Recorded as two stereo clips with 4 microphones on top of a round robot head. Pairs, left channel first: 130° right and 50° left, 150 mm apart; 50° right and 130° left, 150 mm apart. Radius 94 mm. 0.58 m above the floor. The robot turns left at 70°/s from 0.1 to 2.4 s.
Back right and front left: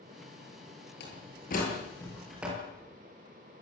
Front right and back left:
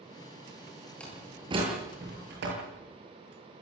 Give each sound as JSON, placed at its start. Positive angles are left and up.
{"t": 1.0, "sound": "a door slam", "azimuth_deg": -130, "distance_m": 9.5}